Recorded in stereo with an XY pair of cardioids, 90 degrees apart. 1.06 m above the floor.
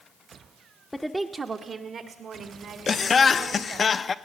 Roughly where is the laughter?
Ahead left.